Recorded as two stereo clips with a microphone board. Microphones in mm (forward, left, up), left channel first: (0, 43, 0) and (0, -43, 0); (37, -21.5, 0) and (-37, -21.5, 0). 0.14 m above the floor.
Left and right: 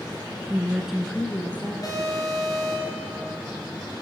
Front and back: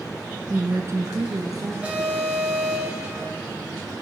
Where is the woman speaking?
140° right, 1.4 m; by 1.7 s 160° left, 2.5 m.